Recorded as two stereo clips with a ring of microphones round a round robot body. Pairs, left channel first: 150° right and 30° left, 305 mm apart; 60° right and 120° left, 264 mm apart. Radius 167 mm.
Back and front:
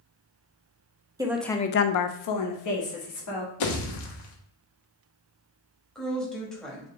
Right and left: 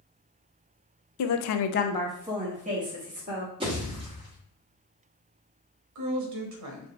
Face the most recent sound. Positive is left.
turn(degrees=120)